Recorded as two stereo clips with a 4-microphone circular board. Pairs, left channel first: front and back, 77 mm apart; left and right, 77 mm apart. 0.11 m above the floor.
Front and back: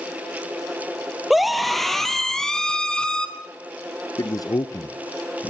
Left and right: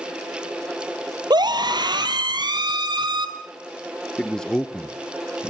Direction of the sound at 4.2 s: 10° left.